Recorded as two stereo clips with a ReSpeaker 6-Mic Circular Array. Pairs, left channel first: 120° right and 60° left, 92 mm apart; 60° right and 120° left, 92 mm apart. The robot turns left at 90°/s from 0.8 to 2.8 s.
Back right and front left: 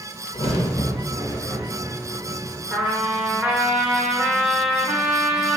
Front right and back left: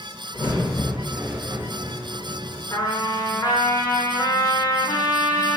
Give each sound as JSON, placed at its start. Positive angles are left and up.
{"t": 0.3, "sound": "a crack", "azimuth_deg": -120, "distance_m": 0.6}
{"t": 2.7, "sound": "a trumpet", "azimuth_deg": -5, "distance_m": 0.6}